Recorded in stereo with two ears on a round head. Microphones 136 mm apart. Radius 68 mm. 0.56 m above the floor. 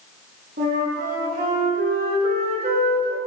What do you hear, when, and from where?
0.6 s a flute: 65° right (ahead or behind), 6.5 m